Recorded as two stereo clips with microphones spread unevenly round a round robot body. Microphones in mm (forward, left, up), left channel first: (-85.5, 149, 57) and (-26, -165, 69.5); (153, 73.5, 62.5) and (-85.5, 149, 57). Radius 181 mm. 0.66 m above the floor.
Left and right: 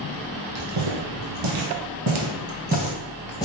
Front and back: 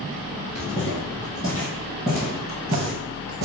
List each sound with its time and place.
0.6 s footsteps: 80° right, 1.9 m; by 3.5 s 175° left, 0.8 m